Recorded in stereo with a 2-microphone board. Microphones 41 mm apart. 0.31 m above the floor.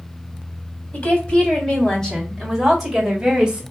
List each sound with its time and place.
0.9 s a woman speaking: 35° left (ahead or behind), 1.9 m; by 3.6 s 15° right (ahead or behind), 1.8 m